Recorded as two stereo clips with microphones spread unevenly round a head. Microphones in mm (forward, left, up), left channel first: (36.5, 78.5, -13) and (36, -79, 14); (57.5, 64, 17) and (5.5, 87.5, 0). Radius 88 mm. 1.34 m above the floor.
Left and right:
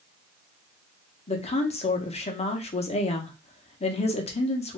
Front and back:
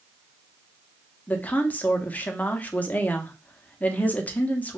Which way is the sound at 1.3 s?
35° left.